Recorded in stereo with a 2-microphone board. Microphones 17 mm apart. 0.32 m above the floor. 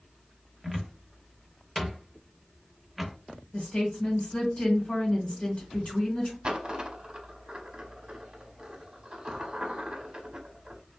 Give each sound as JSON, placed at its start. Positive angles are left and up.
{"t": 0.6, "sound": "a cupboard door", "side_deg": 5, "distance_m": 0.6}
{"t": 3.5, "sound": "a woman speaking", "side_deg": 55, "distance_m": 1.7}
{"t": 6.4, "sound": "a dropped coin", "side_deg": -45, "distance_m": 0.7}